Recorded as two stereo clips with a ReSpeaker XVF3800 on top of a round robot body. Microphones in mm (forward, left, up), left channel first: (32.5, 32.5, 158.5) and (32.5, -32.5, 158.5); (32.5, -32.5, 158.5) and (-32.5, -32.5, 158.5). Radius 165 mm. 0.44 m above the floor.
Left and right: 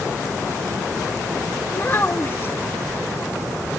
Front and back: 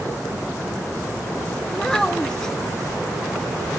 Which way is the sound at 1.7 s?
75° left.